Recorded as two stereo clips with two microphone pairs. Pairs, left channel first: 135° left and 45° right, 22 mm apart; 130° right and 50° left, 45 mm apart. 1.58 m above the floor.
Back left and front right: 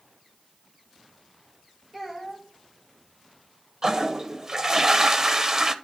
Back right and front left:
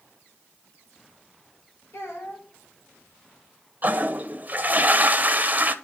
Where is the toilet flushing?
5° left, 0.7 m.